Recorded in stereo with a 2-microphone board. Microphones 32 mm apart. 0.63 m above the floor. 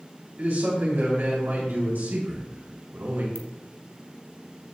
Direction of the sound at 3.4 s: 70° right (ahead or behind).